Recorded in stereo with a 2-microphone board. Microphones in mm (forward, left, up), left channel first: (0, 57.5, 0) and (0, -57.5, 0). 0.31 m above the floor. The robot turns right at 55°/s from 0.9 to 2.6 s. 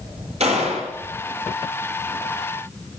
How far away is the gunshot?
About 9 m.